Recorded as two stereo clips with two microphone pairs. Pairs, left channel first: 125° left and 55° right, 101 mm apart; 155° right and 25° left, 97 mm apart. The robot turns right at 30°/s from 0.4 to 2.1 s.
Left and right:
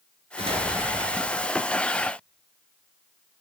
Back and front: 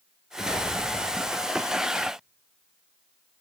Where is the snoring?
I don't hear snoring.